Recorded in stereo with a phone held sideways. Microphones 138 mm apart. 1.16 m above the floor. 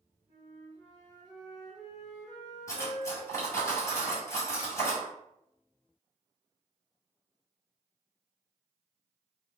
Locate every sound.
0.3 s a flute: 5° right (ahead or behind), 1.7 m
2.7 s cutlery clinking: 20° left (ahead or behind), 1.6 m